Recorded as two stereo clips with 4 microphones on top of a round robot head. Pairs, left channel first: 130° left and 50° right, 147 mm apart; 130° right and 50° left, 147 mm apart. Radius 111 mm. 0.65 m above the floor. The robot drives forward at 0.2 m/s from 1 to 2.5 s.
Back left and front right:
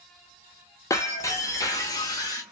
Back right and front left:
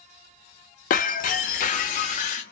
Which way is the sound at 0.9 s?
160° right.